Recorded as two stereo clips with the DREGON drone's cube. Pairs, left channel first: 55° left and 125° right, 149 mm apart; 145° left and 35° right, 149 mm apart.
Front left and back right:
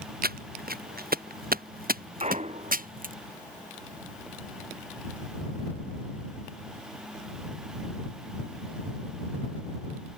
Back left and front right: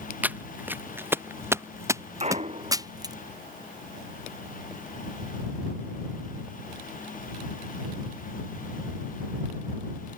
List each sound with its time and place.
0.2 s footsteps: 115° right; by 3.1 s 100° right
2.2 s a clunk: 80° right